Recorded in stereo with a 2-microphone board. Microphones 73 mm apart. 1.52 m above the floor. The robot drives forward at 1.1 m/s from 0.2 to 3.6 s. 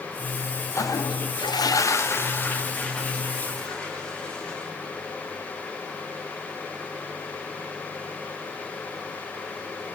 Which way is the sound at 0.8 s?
45° left (ahead or behind).